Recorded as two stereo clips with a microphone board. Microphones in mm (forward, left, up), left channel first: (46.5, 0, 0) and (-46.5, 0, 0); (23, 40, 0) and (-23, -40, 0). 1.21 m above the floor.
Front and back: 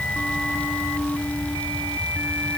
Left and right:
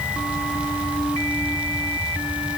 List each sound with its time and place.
Only background noise.